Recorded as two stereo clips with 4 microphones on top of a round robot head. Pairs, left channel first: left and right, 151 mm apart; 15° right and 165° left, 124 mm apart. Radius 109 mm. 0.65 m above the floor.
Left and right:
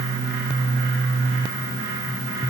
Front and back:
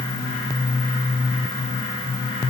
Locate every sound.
Only background noise.